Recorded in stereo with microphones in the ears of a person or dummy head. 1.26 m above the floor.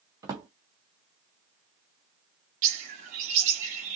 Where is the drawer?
15° right (ahead or behind), 0.5 m.